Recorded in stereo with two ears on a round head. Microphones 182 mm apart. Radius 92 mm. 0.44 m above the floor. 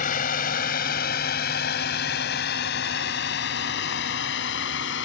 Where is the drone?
45° left (ahead or behind); by 5.0 s 65° left (ahead or behind).